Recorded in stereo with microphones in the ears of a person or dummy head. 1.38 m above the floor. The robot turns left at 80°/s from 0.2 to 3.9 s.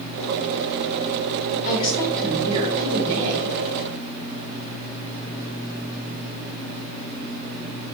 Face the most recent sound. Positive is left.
turn(degrees=-135)